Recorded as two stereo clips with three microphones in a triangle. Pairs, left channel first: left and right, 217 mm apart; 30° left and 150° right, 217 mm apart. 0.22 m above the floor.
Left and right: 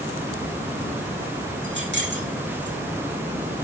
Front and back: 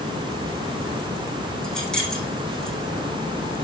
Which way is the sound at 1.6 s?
60° right.